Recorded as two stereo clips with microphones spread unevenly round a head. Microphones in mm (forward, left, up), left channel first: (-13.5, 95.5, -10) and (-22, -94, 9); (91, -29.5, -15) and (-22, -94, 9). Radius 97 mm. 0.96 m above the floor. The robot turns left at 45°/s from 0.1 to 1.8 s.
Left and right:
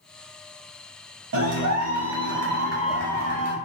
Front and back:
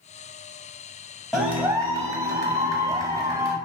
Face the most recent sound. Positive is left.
turn(degrees=-85)